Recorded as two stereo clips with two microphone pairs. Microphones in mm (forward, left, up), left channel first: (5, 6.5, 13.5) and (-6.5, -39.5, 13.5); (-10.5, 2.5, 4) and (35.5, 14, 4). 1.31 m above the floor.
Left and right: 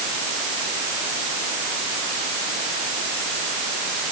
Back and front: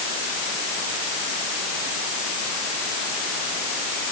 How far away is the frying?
No frying in this recording.